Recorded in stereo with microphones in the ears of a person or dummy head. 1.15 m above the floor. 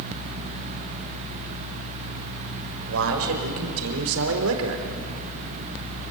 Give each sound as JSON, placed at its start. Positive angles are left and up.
{"t": 2.9, "sound": "a man speaking", "side_deg": -75, "distance_m": 5.0}